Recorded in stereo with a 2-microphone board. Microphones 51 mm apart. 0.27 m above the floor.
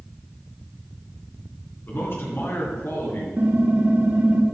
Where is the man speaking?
50° left (ahead or behind), 3 m; by 3.3 s 60° left (ahead or behind), 5 m.